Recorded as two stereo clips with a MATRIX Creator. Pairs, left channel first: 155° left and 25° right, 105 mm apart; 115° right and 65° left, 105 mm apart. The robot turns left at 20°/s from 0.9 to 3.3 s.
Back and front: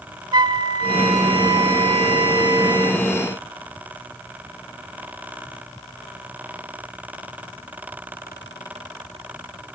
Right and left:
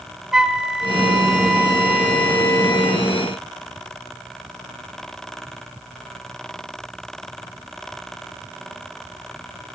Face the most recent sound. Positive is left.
turn(degrees=-60)